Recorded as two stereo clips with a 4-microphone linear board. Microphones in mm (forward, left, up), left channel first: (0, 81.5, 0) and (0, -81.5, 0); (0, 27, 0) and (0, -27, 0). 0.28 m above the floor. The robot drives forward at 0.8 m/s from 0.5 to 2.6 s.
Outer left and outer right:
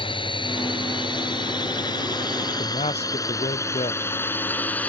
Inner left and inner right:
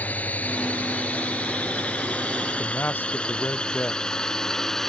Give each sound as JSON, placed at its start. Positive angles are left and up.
{"t": 0.0, "sound": "a drone", "side_deg": 35}
{"t": 2.6, "sound": "a man speaking", "side_deg": 40}